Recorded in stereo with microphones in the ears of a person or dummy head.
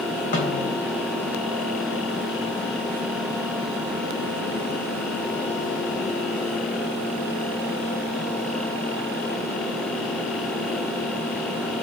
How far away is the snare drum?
About 3 m.